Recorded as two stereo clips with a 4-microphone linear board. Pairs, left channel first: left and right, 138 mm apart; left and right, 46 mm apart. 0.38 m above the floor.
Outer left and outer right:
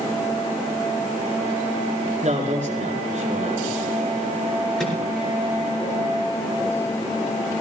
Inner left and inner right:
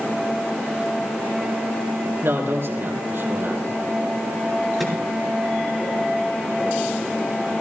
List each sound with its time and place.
2.2 s a man speaking: 55° right (ahead or behind), 4 m
4.8 s a microwave: 5° left (ahead or behind), 4.5 m